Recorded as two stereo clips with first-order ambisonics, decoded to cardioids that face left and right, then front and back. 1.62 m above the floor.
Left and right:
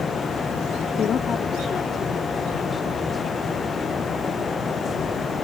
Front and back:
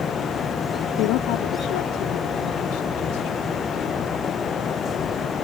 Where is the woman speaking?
30° left; by 3.5 s 5° left.